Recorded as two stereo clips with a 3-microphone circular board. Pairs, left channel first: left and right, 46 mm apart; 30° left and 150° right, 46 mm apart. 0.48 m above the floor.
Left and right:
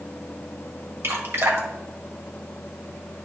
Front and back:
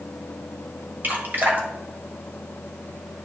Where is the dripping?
105° right, 1.5 m.